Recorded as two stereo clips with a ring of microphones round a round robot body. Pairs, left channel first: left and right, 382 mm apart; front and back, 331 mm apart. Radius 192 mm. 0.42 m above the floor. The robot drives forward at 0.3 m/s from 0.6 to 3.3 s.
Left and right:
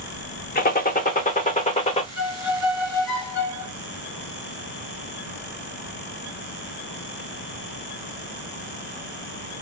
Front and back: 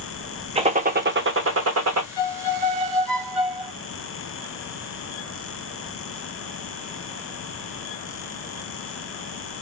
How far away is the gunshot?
About 0.6 m.